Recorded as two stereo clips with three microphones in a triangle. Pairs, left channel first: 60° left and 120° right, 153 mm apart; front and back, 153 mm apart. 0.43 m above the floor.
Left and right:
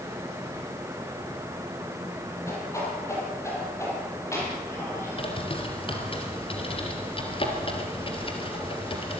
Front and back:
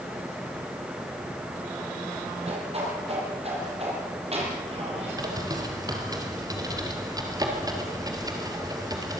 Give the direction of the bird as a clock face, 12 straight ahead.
8 o'clock.